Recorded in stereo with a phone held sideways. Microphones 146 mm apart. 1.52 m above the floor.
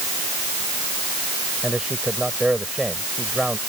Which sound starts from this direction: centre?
A man speaking, at 1.6 s.